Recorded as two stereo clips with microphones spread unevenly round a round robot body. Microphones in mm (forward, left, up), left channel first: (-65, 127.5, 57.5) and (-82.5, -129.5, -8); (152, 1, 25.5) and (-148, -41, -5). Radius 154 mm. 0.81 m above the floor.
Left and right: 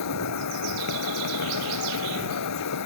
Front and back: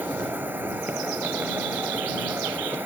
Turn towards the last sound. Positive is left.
turn(degrees=105)